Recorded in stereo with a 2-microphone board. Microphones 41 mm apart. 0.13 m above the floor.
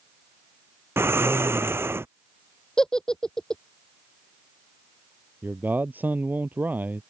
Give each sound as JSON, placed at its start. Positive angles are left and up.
{"t": 1.0, "sound": "snoring", "side_deg": -80}
{"t": 2.8, "sound": "a giggle", "side_deg": 15}
{"t": 5.4, "sound": "a man speaking", "side_deg": -50}